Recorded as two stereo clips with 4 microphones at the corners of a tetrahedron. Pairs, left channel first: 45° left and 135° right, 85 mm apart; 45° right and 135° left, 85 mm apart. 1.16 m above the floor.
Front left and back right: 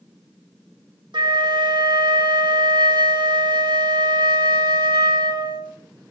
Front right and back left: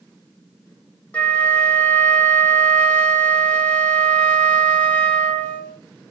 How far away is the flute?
About 1.5 m.